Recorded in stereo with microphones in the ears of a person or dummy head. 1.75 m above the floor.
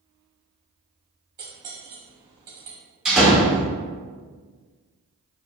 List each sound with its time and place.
1.4 s cutlery clinking: 25° right (ahead or behind), 1.4 m
3.0 s a door slam: 5° right (ahead or behind), 1.3 m